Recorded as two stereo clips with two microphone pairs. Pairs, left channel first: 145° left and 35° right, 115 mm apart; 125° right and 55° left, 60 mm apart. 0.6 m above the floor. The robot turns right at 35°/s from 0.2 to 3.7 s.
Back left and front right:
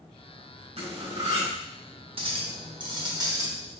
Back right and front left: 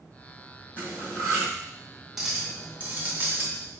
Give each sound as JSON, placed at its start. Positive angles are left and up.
{"t": 0.8, "sound": "cutlery clinking", "azimuth_deg": -60, "distance_m": 1.8}
{"t": 2.2, "sound": "a clink", "azimuth_deg": -30, "distance_m": 0.9}